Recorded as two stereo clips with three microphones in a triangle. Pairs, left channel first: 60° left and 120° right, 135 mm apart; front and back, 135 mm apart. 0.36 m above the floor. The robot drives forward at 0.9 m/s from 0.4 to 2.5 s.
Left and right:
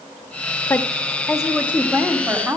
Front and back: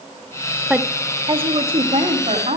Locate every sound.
0.7 s a woman speaking: 105° left, 0.8 m; by 2.6 s 170° left, 1.9 m